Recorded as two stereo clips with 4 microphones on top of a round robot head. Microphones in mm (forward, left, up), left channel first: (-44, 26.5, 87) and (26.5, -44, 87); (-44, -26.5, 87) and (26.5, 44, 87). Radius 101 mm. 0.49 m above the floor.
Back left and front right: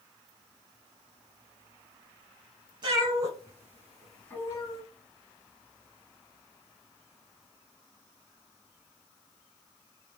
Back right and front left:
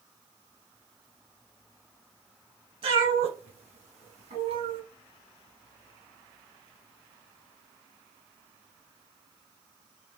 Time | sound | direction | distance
2.8 | a cat meowing | 5° left | 1.1 m